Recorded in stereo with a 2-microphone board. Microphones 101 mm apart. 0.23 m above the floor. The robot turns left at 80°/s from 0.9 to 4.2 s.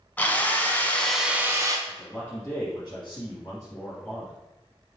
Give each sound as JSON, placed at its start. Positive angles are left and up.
{"t": 0.2, "sound": "a drill", "azimuth_deg": 20, "distance_m": 0.8}
{"t": 1.9, "sound": "a man speaking", "azimuth_deg": -170, "distance_m": 2.0}